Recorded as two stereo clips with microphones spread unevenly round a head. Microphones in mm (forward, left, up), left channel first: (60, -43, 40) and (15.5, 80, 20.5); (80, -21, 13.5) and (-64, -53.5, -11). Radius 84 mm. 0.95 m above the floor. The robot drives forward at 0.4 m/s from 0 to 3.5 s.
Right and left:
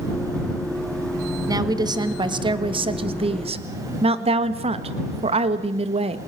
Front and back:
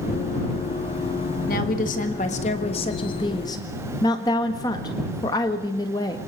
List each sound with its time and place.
1.5 s a woman speaking: 55° left, 1.8 m; by 6.2 s 85° left, 1.5 m